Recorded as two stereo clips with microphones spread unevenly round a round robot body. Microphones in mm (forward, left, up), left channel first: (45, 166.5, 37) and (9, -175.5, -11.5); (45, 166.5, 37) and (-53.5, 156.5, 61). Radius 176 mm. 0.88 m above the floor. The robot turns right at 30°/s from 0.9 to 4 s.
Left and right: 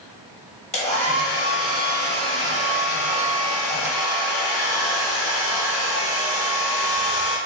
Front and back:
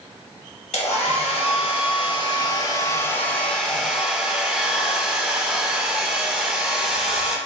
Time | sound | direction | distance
0.7 | a hair dryer | 15° left | 1.3 m